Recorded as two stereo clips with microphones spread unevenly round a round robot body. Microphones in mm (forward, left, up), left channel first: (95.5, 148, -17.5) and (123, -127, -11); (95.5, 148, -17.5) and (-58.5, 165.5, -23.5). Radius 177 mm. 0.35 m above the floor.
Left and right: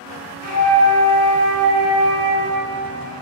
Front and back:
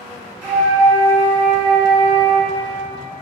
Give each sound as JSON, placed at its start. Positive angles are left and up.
{"t": 0.4, "sound": "a flute", "azimuth_deg": 125, "distance_m": 1.3}